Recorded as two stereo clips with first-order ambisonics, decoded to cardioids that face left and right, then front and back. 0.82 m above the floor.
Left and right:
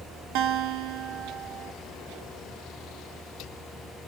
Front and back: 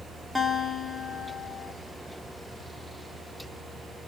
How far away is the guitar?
About 0.8 m.